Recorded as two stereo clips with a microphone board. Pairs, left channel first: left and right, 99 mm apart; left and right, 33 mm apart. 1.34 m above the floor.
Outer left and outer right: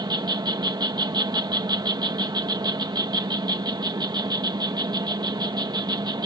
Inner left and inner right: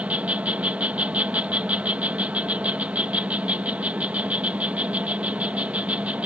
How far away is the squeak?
No squeak in this recording.